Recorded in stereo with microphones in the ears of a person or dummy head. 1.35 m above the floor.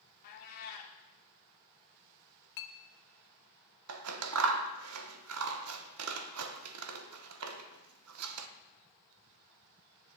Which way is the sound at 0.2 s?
45° left (ahead or behind).